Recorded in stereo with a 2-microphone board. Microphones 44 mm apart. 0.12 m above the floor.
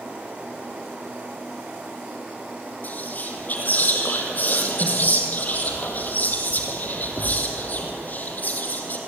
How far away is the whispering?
About 4.5 m.